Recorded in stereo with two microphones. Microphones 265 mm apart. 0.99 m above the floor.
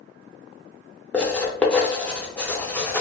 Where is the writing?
5° left (ahead or behind), 0.6 m.